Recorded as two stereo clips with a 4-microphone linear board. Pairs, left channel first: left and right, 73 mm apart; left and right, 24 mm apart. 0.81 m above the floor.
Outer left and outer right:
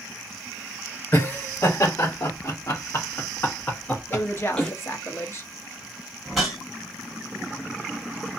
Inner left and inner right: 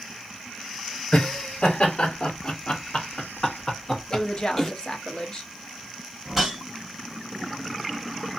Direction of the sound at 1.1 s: 45° left (ahead or behind).